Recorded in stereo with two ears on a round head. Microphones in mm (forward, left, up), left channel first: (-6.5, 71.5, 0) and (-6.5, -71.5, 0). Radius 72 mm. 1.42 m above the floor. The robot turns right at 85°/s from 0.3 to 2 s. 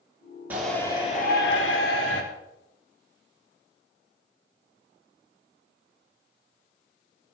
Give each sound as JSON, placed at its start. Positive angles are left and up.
{"t": 0.5, "sound": "a shout", "azimuth_deg": -10, "distance_m": 3.5}